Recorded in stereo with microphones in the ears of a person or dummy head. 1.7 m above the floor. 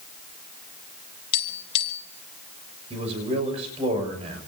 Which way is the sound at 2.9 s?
35° right (ahead or behind).